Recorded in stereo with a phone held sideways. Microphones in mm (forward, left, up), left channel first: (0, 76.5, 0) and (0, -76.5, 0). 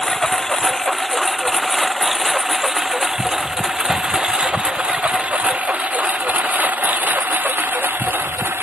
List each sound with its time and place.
0.0 s a lawn mower: 5° left (ahead or behind); by 8.6 s 15° right (ahead or behind)